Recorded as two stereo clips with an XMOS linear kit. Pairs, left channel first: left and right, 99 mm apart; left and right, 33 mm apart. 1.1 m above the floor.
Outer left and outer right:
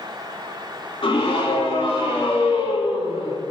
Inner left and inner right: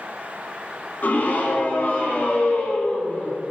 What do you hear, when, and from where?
1.0 s a scream: 60° left (ahead or behind), 3.5 m